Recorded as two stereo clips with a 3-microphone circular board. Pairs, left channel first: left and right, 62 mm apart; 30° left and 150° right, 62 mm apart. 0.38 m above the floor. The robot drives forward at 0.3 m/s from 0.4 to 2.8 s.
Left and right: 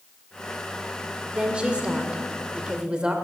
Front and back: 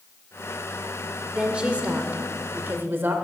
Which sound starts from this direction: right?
A woman speaking, at 1.3 s.